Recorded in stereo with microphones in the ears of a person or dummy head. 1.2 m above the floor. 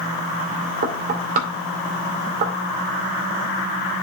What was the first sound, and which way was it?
Knocking, 50° right (ahead or behind).